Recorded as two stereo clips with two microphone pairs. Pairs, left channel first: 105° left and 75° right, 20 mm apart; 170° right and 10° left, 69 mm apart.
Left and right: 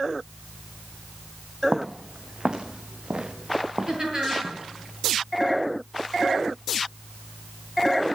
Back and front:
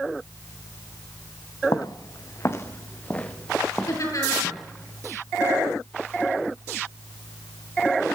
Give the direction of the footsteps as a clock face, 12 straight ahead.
5 o'clock.